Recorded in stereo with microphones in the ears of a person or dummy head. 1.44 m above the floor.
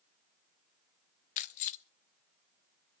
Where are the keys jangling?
45° left (ahead or behind), 0.6 m.